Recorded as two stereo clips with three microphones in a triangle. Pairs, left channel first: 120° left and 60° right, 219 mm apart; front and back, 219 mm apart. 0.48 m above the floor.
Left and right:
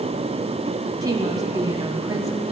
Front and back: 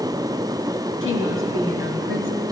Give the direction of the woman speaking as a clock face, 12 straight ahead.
12 o'clock.